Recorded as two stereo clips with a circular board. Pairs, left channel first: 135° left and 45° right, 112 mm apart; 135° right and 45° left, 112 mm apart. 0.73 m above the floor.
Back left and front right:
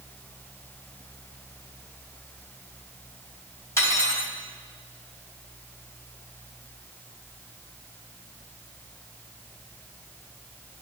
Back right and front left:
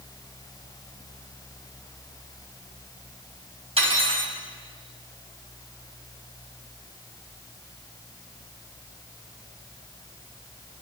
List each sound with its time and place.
3.8 s cutlery clinking: 70° left, 2.5 m